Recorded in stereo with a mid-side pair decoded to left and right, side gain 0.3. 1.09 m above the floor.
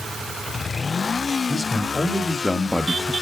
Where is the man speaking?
40° left, 2.5 m; by 3.1 s 15° right, 0.9 m.